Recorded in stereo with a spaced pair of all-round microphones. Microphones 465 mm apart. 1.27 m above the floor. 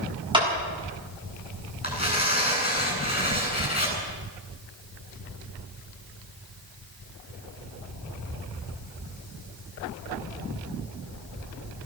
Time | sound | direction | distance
0.3 | a clap | 10° right (ahead or behind) | 7 m
1.8 | tearing paper | 20° left (ahead or behind) | 8.5 m